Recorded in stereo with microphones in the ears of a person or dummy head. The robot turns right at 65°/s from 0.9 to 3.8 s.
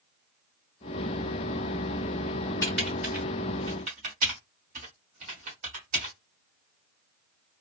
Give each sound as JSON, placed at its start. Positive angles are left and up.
{"t": 2.6, "sound": "typing on a keyboard", "side_deg": 15, "distance_m": 1.2}